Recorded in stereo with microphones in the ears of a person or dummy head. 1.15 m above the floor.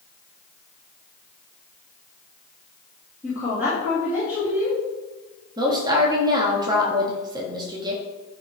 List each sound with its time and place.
3.2 s a woman speaking: 10° right (ahead or behind), 3 m
5.6 s a woman speaking: 20° right (ahead or behind), 1.4 m